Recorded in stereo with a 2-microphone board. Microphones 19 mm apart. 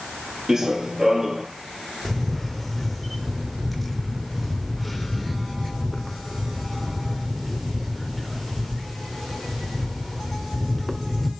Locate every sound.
0.5 s running footsteps: 30° right (ahead or behind), 1.9 m
2.0 s a camera shutter: centre (ahead or behind), 1.1 m